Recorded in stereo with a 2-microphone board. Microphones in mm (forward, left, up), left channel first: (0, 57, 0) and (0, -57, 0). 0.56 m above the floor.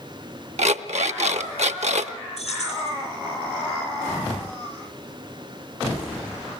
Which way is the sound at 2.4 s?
75° left (ahead or behind).